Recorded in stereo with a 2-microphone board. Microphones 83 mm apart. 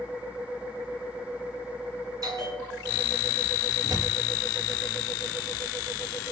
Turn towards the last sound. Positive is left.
turn(degrees=-50)  # may be behind; listen again after turning